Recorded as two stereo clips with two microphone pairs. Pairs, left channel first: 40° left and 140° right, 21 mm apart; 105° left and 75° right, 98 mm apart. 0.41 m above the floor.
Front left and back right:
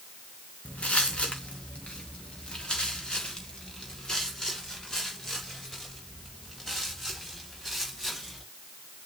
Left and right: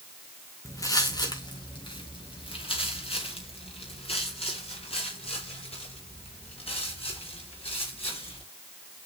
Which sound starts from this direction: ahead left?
Footsteps, at 0.7 s.